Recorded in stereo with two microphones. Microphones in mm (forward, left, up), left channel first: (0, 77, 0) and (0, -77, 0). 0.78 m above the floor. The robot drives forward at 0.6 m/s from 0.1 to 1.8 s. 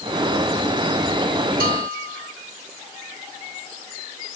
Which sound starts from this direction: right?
A bell, at 1.6 s.